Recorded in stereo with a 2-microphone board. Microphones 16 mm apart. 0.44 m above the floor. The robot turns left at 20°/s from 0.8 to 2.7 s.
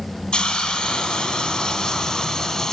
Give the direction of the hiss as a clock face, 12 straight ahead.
9 o'clock.